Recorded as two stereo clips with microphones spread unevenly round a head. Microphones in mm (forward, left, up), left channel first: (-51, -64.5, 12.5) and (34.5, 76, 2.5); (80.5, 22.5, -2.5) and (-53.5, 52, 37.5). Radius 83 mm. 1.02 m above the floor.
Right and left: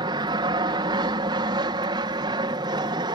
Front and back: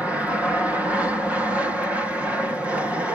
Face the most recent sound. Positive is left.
turn(degrees=65)